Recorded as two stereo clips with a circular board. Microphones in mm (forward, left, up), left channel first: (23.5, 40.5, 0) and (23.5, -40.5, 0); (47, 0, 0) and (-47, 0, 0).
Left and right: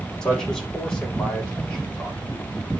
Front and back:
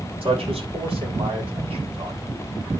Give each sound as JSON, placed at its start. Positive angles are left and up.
{"t": 0.2, "sound": "a man speaking", "azimuth_deg": 170, "distance_m": 4.5}